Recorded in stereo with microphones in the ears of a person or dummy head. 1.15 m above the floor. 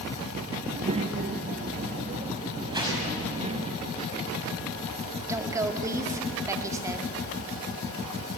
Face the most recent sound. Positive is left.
turn(degrees=-20)  # may be behind; listen again after turning